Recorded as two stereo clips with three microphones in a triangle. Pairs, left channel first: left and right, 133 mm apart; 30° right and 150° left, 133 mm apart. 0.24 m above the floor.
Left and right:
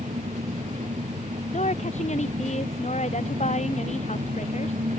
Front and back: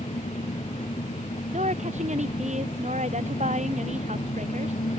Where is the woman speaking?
120° left.